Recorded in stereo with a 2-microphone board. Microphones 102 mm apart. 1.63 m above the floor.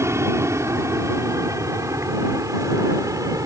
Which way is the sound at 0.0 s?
25° right (ahead or behind).